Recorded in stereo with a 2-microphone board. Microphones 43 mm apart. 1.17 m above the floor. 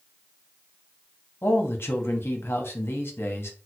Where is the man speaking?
60° left (ahead or behind), 0.8 m.